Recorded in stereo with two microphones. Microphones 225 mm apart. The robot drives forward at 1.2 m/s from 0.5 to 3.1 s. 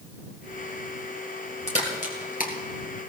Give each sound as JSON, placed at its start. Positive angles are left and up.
{"t": 1.7, "sound": "a crack", "side_deg": 25, "distance_m": 3.0}